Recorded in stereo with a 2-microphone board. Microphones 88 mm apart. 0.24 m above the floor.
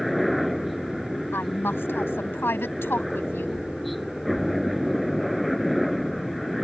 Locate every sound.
0.0 s a helicopter: centre (ahead or behind)
1.3 s a woman speaking: 25° left (ahead or behind)